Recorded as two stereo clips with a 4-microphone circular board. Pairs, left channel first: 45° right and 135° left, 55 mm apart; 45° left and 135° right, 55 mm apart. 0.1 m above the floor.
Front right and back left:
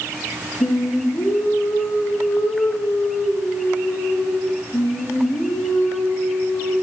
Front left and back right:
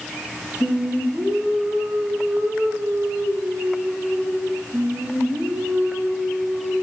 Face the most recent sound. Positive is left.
turn(degrees=-65)